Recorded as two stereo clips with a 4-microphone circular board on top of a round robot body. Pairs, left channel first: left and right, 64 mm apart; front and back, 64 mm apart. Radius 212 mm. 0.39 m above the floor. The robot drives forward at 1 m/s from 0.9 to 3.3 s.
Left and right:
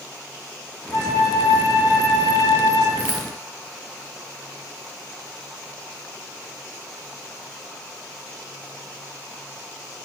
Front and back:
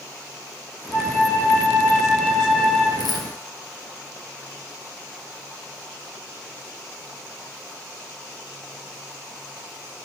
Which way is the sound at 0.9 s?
50° left.